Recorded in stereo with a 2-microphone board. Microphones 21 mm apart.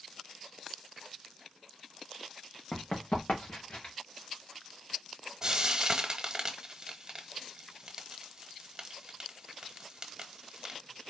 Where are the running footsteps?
75° left (ahead or behind), 1.8 m; by 3.9 s 55° left (ahead or behind), 3 m.